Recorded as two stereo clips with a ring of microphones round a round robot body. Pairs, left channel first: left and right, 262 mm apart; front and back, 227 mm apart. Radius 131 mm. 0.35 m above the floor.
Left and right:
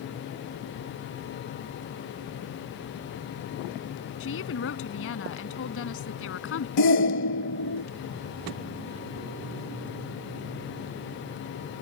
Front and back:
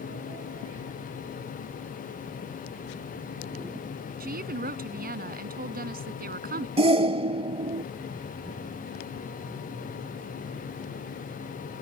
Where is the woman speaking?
130° left.